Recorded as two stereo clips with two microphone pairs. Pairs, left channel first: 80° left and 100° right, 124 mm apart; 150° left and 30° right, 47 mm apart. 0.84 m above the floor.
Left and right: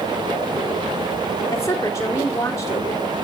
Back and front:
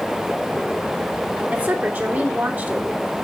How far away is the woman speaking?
About 2.5 m.